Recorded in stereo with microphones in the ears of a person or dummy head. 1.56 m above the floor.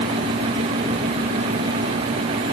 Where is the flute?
I don't hear a flute.